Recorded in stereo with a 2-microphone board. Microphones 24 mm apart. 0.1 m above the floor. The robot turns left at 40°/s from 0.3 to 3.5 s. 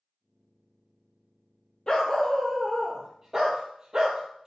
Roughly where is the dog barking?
Ahead left.